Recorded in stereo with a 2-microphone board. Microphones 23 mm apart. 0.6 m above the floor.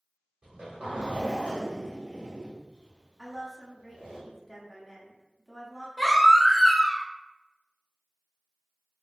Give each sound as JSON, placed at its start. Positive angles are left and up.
{"t": 0.4, "sound": "a zipper", "side_deg": -55, "distance_m": 1.4}
{"t": 3.2, "sound": "a woman speaking", "side_deg": 0, "distance_m": 0.9}
{"t": 6.0, "sound": "a baby crying", "side_deg": 5, "distance_m": 0.6}